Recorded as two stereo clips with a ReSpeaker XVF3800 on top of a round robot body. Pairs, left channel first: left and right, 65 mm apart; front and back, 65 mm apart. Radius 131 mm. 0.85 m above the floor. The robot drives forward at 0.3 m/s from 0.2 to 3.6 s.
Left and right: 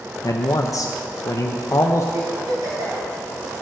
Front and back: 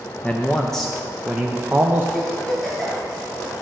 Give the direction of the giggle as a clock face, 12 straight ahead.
3 o'clock.